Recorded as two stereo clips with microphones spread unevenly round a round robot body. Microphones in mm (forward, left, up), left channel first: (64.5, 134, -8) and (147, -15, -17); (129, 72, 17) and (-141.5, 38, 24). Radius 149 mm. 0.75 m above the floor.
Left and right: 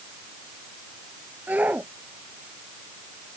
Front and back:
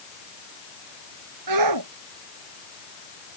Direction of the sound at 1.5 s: 145° right.